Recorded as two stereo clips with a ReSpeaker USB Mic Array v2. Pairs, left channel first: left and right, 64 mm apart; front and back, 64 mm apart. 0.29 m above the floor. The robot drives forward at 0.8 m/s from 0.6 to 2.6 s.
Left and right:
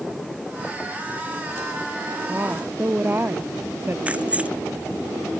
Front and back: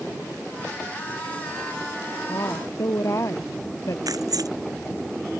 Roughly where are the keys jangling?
Behind.